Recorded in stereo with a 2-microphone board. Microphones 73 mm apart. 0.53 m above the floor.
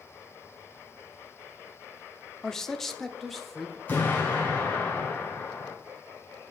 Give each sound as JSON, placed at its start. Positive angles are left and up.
{"t": 2.4, "sound": "a man speaking", "side_deg": 10, "distance_m": 0.7}
{"t": 3.9, "sound": "an explosion", "side_deg": 25, "distance_m": 4.5}